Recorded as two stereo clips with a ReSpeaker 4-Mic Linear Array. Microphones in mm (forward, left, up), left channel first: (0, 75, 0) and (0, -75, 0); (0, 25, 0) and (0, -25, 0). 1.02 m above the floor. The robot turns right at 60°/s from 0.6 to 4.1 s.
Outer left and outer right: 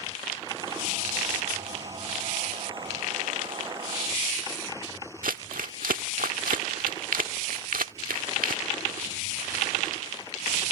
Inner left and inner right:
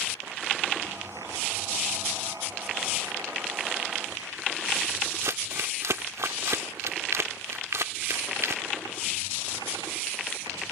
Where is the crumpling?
80° right.